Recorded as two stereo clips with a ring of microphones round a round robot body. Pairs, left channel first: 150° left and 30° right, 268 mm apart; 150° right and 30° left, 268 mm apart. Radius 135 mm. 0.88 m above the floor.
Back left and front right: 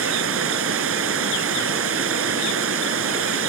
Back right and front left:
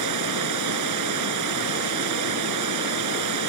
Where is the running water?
10° left.